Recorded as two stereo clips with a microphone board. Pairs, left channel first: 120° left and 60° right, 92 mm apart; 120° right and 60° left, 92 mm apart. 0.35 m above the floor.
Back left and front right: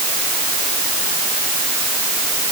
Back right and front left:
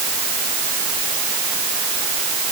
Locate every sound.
Only background noise.